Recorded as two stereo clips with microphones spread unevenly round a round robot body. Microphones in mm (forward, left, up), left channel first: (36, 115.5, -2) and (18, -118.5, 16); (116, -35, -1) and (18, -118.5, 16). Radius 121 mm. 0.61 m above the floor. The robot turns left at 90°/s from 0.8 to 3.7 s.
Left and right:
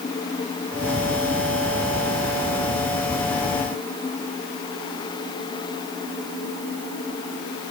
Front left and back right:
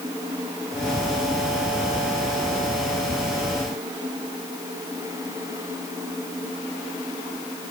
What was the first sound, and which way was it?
Only background noise.